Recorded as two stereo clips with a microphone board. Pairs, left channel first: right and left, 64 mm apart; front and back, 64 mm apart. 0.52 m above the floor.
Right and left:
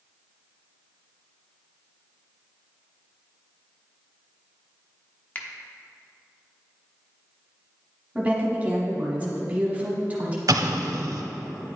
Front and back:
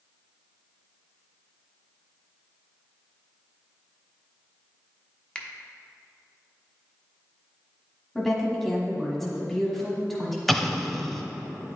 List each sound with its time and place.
5.3 s a finger snap: 60° right, 0.7 m
8.2 s a woman speaking: 80° left, 1.1 m
10.5 s an explosion: 85° left, 0.5 m